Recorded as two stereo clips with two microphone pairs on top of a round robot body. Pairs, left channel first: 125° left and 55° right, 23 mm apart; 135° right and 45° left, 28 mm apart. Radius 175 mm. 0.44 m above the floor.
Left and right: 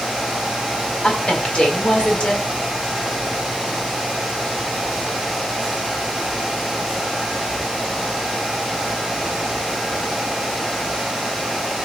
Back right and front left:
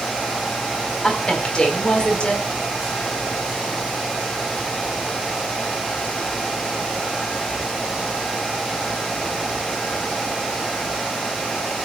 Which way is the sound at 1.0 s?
170° left.